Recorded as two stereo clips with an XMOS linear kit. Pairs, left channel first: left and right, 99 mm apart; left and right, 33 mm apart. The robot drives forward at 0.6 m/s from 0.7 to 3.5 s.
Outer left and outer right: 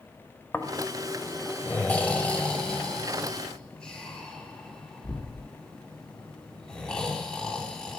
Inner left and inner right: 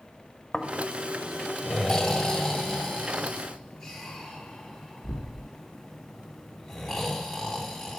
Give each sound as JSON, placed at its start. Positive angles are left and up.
{"t": 0.5, "sound": "snoring", "side_deg": 20, "distance_m": 0.9}